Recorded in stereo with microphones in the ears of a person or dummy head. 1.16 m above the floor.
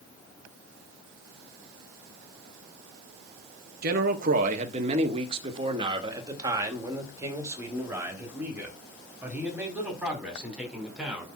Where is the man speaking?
60° right (ahead or behind), 1.6 m; by 11.3 s 5° right (ahead or behind), 5 m.